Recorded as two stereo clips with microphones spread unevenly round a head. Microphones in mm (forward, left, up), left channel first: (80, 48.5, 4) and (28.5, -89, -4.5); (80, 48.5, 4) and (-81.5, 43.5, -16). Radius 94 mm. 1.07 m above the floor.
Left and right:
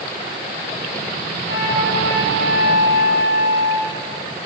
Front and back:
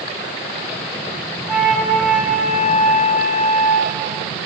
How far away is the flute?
About 7.5 m.